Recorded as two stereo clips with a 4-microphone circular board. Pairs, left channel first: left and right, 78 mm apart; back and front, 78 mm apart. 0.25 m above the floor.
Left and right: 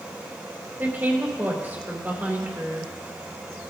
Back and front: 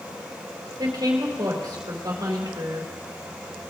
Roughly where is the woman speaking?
Ahead right.